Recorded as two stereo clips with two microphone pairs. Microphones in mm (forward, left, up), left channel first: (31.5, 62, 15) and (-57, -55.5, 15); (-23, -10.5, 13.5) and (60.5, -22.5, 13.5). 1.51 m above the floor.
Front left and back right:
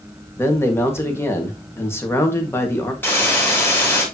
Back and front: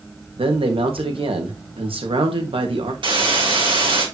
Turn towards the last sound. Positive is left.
turn(degrees=-25)